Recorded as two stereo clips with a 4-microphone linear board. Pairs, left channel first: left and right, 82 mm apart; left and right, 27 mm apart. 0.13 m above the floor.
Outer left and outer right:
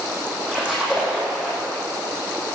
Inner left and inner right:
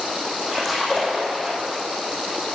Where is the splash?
10° right (ahead or behind), 6.5 m.